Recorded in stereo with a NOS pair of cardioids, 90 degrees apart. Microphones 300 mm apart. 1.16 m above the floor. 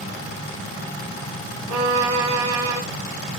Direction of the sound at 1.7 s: 70° right.